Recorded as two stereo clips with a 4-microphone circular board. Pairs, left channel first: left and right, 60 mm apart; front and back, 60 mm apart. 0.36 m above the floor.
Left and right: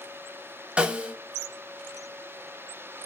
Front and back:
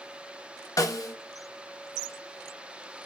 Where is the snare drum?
20° right, 0.5 m.